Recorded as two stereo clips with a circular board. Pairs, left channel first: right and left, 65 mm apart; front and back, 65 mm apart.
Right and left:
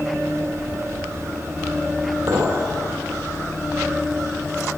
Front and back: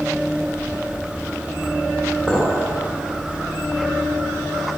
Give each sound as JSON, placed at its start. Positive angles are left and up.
{"t": 2.3, "sound": "a clink", "azimuth_deg": 65, "distance_m": 2.5}